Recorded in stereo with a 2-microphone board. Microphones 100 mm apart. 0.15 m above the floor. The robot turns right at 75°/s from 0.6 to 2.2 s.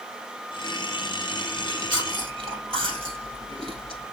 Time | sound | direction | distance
1.6 | chewing | 25° right (ahead or behind) | 2.5 m